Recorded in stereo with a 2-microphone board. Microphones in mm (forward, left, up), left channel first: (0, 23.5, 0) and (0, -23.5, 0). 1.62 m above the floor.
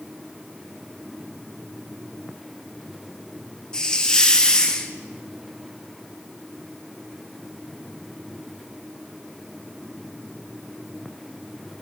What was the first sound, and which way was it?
A hiss, 15° left (ahead or behind).